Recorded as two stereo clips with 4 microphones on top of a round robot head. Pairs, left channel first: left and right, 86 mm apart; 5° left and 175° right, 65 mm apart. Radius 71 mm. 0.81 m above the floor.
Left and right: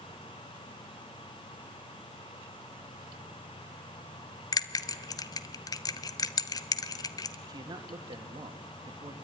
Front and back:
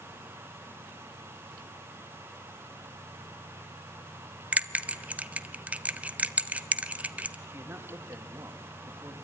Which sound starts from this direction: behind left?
A bell, at 4.5 s.